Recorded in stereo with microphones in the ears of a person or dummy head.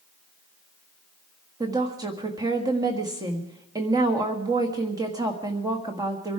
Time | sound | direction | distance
1.6 | a woman speaking | 20° right (ahead or behind) | 1.8 m